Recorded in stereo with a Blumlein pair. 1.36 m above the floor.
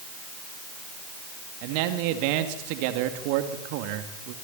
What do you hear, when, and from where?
1.6 s a man speaking: 45° right, 2.5 m